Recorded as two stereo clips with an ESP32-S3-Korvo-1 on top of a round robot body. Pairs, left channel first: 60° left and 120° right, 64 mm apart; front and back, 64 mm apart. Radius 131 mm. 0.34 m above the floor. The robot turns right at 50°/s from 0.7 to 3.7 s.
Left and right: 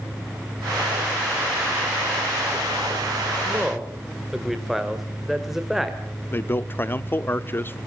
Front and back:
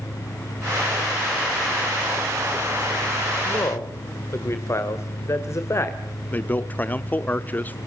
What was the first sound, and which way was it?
A man speaking, 45° right.